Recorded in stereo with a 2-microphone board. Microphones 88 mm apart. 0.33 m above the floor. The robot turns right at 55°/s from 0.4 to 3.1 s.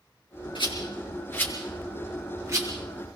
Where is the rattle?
70° left (ahead or behind), 6.5 m; by 2.7 s 45° right (ahead or behind), 6.5 m.